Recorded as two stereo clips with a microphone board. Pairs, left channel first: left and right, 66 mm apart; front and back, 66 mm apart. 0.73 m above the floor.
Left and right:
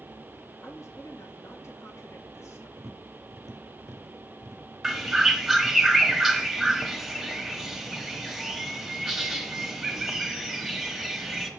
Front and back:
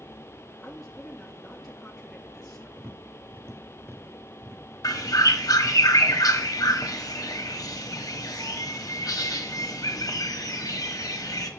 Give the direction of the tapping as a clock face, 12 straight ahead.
4 o'clock.